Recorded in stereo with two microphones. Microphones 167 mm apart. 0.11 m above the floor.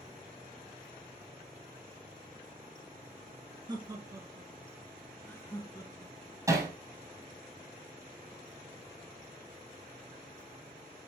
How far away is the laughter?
About 1.9 m.